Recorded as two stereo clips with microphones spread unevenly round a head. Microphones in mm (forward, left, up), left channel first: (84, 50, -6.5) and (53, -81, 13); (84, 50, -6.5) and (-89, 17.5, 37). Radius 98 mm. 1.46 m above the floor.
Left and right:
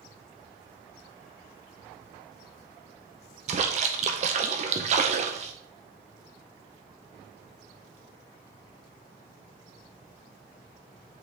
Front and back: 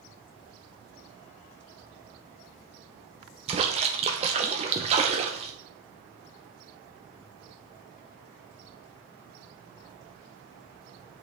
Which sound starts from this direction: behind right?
A splash, at 3.5 s.